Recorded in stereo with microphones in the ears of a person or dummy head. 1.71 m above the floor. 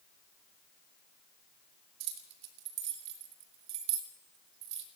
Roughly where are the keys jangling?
Right.